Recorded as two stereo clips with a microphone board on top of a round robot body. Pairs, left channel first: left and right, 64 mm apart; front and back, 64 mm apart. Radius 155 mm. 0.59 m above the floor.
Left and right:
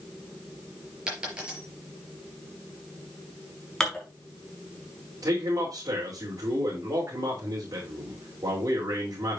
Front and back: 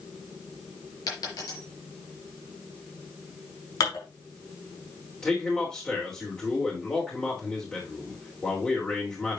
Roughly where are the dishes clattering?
Ahead.